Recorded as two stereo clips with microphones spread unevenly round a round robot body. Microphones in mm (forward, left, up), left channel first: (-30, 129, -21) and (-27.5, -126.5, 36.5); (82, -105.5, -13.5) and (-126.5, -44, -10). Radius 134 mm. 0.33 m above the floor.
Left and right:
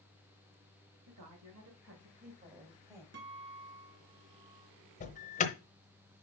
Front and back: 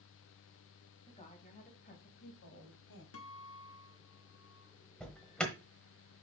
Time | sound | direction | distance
1.1 | a woman speaking | 75° right | 2.5 m
3.1 | a guitar | 35° right | 1.3 m
5.0 | an alarm | 70° left | 1.0 m